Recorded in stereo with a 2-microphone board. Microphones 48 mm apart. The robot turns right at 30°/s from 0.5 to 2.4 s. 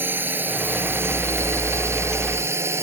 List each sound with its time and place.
0.0 s a drone: 45° right (ahead or behind); by 2.8 s 65° right (ahead or behind)